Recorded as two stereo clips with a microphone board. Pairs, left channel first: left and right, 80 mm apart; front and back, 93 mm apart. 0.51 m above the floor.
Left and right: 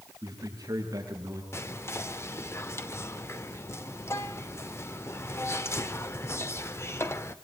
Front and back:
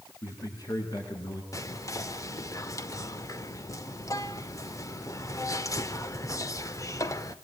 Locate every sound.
0.2 s a man speaking: 50° right, 6.5 m; by 1.4 s 45° right, 7 m
1.5 s whispering: 45° left, 1.1 m